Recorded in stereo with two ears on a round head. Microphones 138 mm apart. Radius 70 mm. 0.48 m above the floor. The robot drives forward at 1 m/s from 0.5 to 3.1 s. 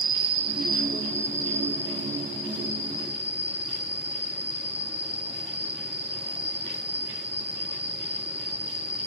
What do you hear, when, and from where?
0.0 s an insect: 35° right (ahead or behind), 0.9 m; by 9.1 s 10° right (ahead or behind), 3.5 m